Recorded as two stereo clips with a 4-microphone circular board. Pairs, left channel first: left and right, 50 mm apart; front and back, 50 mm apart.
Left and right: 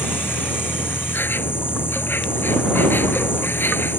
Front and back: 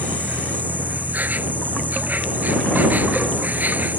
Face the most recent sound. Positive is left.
turn(degrees=130)